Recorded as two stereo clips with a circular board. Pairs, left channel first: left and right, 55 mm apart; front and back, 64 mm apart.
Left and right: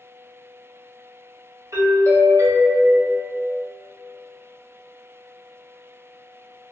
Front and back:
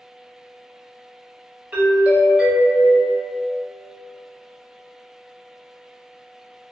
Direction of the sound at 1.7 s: 110° right.